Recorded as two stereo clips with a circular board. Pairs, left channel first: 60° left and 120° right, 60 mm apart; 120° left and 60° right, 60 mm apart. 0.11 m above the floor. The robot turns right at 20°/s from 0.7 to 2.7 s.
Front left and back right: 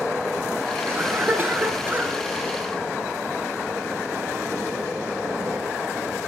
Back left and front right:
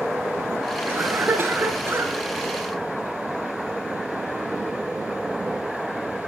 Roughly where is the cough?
Right.